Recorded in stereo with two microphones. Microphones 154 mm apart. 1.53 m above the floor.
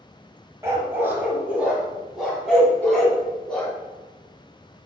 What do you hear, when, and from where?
0.6 s a dog barking: 20° right (ahead or behind), 2 m; by 3.7 s 5° left (ahead or behind), 4 m
2.8 s a cowbell: 10° left (ahead or behind), 2.5 m